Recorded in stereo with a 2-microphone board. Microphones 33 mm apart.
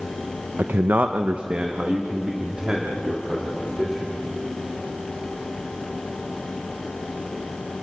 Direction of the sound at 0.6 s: 85° right.